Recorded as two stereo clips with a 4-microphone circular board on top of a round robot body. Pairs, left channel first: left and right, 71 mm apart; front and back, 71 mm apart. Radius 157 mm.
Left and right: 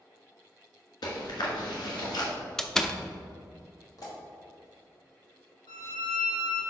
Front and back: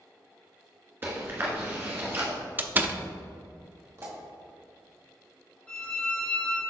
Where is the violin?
80° left, 2 m.